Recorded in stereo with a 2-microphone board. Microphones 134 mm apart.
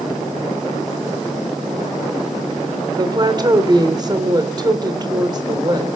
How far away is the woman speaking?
About 3 m.